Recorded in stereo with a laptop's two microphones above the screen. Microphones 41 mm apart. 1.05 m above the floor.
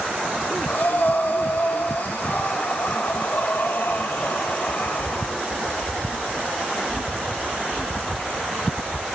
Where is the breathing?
60° left (ahead or behind), 1.5 m.